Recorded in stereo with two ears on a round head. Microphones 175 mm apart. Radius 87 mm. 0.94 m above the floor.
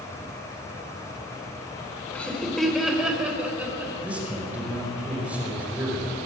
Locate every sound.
2.1 s laughter: 5° left (ahead or behind), 3.5 m; by 3.9 s 10° right (ahead or behind), 5.5 m
4.0 s a man speaking: 5° right (ahead or behind), 5 m